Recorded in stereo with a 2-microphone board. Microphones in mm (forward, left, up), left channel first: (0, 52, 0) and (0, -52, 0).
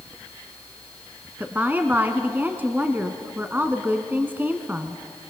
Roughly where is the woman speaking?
Centre.